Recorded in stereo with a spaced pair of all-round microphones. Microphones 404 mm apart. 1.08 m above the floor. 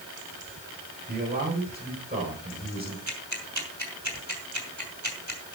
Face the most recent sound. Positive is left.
turn(degrees=-45)  # may be behind; listen again after turning